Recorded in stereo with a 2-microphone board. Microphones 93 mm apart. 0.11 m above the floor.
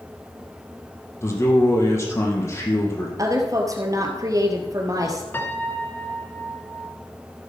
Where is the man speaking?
30° left (ahead or behind), 3 m.